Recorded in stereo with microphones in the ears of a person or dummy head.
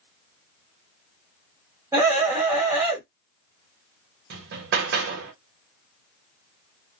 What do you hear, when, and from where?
1.9 s a scream: 10° right (ahead or behind), 1.7 m
4.3 s hammering: 55° right (ahead or behind), 0.9 m